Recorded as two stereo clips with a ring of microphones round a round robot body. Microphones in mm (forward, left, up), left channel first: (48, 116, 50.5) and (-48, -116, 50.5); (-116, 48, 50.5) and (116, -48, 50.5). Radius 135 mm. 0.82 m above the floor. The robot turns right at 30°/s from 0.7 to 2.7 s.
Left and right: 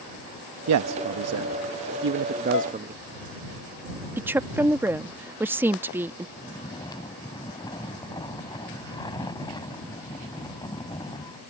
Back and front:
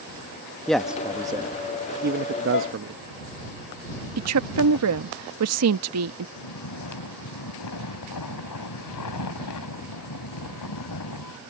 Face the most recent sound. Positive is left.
turn(degrees=140)